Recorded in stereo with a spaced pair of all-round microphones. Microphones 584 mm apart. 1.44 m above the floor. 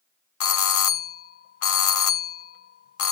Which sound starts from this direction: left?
A doorbell, at 0.4 s.